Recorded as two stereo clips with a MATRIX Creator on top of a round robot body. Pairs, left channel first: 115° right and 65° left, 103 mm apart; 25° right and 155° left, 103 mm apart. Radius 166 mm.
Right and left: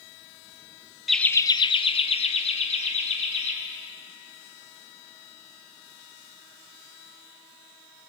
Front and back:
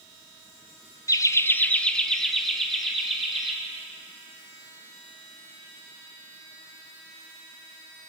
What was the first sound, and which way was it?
Laughter, 20° right.